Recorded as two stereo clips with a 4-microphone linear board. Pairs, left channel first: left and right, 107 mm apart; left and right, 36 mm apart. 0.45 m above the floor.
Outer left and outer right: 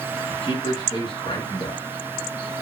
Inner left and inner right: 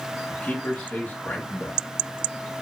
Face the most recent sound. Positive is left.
turn(degrees=50)  # may be behind; listen again after turning